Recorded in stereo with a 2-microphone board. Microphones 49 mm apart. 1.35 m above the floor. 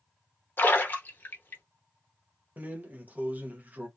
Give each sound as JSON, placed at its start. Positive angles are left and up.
{"t": 0.6, "sound": "a splash", "side_deg": 40, "distance_m": 0.7}
{"t": 2.6, "sound": "a drawer", "side_deg": -35, "distance_m": 0.6}